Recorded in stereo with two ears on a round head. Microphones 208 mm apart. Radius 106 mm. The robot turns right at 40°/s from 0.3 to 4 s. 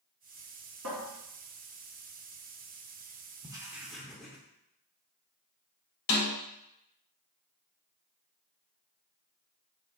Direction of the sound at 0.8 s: 75° right (ahead or behind).